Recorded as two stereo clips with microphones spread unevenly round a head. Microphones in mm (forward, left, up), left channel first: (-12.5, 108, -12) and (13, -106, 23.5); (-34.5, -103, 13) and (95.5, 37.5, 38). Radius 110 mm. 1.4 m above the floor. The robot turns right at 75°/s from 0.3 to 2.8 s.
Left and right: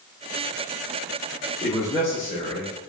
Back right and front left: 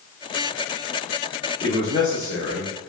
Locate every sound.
1.6 s a man speaking: 170° left, 1.1 m; by 2.9 s 100° right, 1.1 m